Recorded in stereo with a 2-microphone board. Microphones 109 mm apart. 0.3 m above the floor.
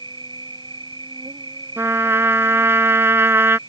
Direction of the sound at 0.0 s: 45° right (ahead or behind).